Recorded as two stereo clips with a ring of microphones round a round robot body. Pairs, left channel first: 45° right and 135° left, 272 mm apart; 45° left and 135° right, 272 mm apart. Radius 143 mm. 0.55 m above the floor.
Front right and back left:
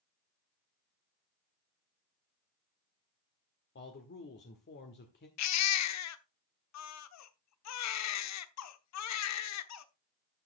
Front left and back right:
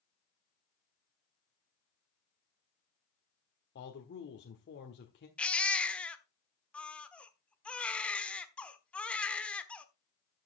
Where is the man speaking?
Straight ahead, 1.5 m.